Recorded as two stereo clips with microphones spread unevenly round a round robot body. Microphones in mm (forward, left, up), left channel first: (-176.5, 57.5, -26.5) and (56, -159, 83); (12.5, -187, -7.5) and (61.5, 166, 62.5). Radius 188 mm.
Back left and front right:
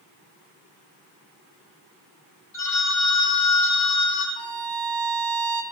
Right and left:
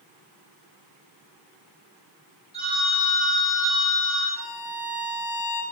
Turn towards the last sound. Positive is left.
turn(degrees=-50)